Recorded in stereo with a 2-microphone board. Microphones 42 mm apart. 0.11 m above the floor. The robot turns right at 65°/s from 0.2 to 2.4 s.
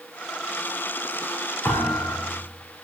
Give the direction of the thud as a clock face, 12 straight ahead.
10 o'clock.